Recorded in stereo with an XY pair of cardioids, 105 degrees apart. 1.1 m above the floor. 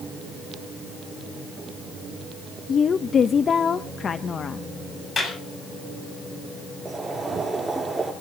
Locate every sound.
2.7 s a woman speaking: 45° left, 0.8 m
5.2 s a clap: 40° left, 7.5 m
6.8 s boiling: 10° right, 7 m